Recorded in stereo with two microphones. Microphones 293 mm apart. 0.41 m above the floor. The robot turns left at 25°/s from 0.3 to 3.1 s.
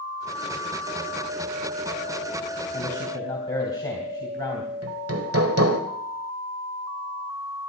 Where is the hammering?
50° right (ahead or behind), 1.5 m.